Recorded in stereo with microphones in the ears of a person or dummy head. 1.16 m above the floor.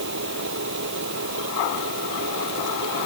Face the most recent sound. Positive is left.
turn(degrees=-65)  # may be behind; listen again after turning